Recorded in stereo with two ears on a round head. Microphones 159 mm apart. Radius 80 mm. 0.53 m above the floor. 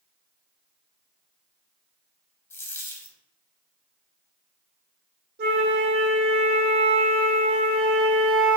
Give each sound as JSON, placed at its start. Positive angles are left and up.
{"t": 2.5, "sound": "a dropped coin", "side_deg": 15, "distance_m": 0.6}
{"t": 5.4, "sound": "a flute", "side_deg": -60, "distance_m": 1.2}